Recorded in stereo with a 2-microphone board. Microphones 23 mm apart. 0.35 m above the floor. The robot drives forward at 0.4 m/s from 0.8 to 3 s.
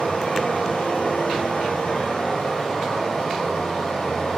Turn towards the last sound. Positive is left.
turn(degrees=50)  # may be behind; listen again after turning